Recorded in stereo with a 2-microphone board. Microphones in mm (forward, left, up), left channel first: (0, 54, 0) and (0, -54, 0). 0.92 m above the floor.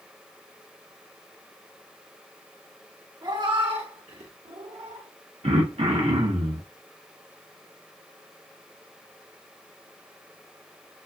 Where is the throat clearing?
70° right (ahead or behind), 1.0 m.